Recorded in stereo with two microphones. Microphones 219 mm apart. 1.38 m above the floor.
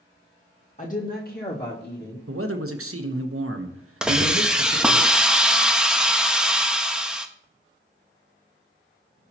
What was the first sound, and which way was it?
A woman speaking, 35° left (ahead or behind).